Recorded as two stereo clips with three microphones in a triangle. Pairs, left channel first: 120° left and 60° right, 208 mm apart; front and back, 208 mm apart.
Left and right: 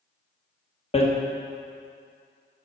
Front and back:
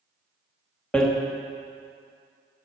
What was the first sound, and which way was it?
Hammering, 85° left.